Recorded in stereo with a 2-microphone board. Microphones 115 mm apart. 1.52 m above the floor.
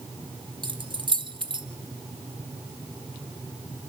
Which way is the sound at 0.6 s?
40° right (ahead or behind).